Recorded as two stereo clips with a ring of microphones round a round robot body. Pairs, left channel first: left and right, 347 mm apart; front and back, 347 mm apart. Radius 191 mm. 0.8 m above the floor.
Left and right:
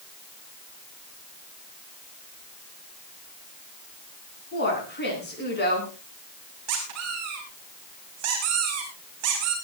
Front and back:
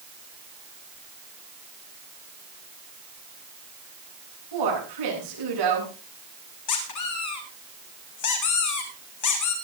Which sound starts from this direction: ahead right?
A squeak, at 6.7 s.